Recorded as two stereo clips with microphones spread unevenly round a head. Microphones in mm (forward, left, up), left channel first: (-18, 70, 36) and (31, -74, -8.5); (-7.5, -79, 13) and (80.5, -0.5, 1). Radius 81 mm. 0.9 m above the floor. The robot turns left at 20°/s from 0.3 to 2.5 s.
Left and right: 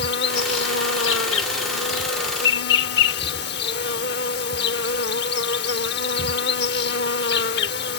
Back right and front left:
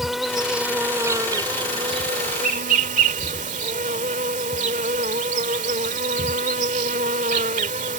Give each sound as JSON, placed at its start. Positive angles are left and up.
{"t": 0.0, "sound": "an insect", "azimuth_deg": 130}